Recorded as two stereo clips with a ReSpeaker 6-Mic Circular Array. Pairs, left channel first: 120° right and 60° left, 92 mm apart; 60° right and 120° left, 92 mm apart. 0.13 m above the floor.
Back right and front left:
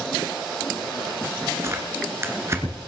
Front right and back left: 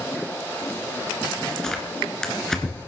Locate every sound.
1.6 s tearing paper: 20° left, 2 m